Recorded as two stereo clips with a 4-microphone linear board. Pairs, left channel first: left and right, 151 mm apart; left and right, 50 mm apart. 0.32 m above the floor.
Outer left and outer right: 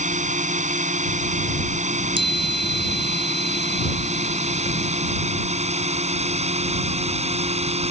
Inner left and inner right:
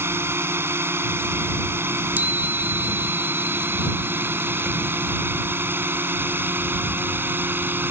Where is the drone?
55° right (ahead or behind); by 7.9 s 45° right (ahead or behind).